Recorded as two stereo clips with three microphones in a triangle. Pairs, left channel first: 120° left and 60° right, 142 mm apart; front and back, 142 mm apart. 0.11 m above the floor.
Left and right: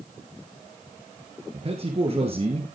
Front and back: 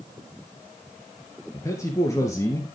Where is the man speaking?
60° right, 2 m.